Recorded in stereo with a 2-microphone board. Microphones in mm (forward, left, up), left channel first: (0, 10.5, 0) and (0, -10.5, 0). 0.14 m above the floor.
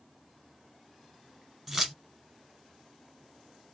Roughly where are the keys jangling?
Centre.